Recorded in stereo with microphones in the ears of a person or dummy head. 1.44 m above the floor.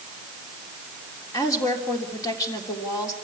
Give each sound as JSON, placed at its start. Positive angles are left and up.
{"t": 1.3, "sound": "a woman speaking", "side_deg": 20, "distance_m": 3.5}